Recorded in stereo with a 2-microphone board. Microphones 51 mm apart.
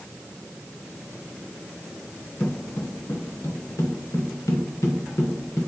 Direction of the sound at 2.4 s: 45° left (ahead or behind).